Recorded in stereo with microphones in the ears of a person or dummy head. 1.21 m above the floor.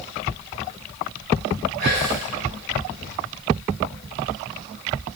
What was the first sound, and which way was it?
Whispering, 80° right.